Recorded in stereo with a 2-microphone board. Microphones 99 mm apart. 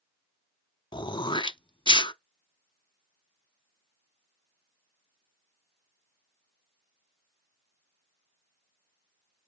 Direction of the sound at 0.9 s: 50° left (ahead or behind).